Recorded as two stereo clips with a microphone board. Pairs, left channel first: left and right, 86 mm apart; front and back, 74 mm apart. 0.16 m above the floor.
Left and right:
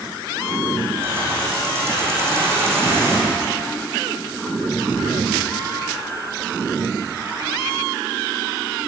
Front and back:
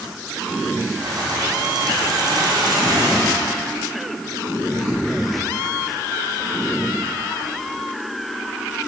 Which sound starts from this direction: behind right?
Keys jangling, at 1.0 s.